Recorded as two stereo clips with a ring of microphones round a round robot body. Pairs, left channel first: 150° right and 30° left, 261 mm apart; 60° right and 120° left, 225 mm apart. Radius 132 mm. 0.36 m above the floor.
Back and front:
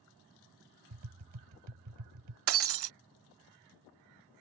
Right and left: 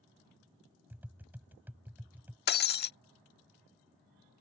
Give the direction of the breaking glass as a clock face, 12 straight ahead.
12 o'clock.